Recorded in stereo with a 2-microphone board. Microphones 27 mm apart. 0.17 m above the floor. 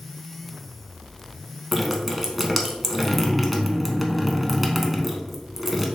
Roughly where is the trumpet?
No trumpet in this recording.